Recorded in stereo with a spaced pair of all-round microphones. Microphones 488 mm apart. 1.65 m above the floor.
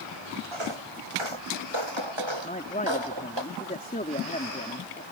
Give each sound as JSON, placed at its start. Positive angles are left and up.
{"t": 0.5, "sound": "footsteps", "side_deg": -75}
{"t": 2.4, "sound": "a man speaking", "side_deg": 15}